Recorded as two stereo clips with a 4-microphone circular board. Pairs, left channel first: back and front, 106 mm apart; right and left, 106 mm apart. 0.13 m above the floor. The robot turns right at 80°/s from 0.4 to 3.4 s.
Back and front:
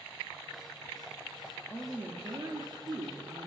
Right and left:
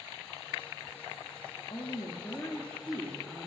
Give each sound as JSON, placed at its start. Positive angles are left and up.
{"t": 1.7, "sound": "a woman speaking", "azimuth_deg": -95, "distance_m": 1.7}